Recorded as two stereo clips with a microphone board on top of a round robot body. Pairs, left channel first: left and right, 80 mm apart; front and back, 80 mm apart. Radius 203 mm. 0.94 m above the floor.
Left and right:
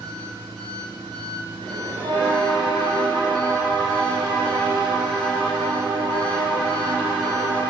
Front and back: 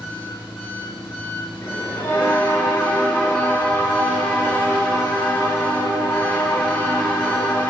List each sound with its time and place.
0.0 s an engine running: 65° right, 6.5 m
1.6 s a bell: 70° right, 3.5 m